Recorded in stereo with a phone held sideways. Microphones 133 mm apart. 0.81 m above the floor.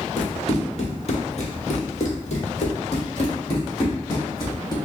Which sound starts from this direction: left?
Running footsteps, at 0.2 s.